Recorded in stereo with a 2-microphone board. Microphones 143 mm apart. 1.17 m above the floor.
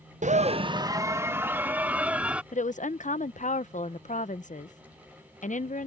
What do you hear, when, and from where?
0.2 s a scream: 60° right (ahead or behind); by 2.4 s 10° right (ahead or behind)
2.5 s a woman speaking: 60° left (ahead or behind)